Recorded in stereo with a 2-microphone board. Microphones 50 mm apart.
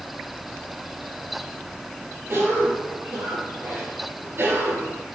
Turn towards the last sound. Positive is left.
turn(degrees=-50)  # may be behind; listen again after turning